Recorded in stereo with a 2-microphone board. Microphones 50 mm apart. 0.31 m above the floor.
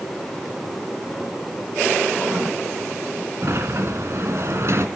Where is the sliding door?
55° right (ahead or behind), 2 m.